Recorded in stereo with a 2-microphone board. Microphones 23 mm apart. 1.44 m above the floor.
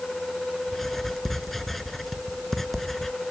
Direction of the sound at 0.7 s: 15° left (ahead or behind).